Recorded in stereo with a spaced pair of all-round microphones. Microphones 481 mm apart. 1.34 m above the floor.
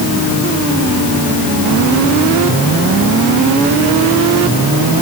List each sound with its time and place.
Only background noise.